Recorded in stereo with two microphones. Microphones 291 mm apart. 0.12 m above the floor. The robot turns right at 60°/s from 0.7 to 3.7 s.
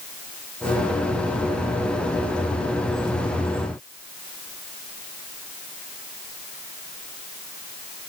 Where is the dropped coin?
No dropped coin in this recording.